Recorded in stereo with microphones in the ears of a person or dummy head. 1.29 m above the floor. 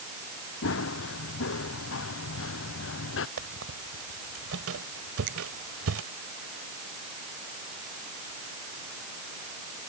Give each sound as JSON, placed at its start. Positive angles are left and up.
{"t": 0.6, "sound": "running footsteps", "side_deg": 70}
{"t": 3.4, "sound": "a squeak", "side_deg": -85}
{"t": 5.3, "sound": "a finger snap", "side_deg": -55}